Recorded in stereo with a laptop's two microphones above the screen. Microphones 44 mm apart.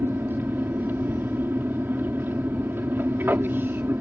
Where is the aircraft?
50° right (ahead or behind).